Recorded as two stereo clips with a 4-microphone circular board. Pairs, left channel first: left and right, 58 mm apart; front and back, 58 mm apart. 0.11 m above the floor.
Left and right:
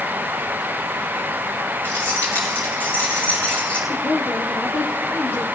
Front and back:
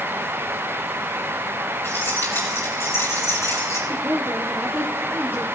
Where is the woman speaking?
135° left, 3 m.